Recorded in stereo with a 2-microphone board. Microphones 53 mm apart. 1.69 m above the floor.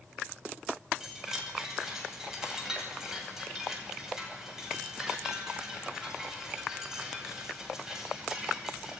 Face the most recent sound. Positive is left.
turn(degrees=-10)  # may be behind; listen again after turning